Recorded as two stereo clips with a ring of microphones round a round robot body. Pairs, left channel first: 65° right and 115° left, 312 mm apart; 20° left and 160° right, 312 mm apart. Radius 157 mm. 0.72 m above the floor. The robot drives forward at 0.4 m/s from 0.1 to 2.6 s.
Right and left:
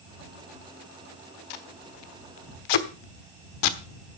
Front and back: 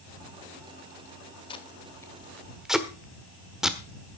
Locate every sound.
1.5 s tape being pulled: 50° right, 1.4 m; by 3.8 s 70° right, 1.2 m